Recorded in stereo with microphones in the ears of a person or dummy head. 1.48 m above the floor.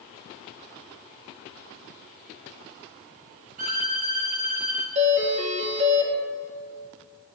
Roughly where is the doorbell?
Right.